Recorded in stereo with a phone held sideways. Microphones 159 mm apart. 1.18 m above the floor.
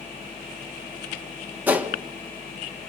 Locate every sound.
1.7 s a gunshot: 10° right (ahead or behind), 1.5 m